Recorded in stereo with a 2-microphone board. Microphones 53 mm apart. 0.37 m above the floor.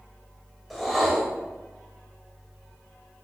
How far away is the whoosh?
About 1.2 m.